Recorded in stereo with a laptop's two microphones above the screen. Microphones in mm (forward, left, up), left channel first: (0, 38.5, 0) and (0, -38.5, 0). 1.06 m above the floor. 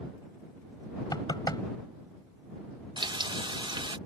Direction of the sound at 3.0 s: 75° right (ahead or behind).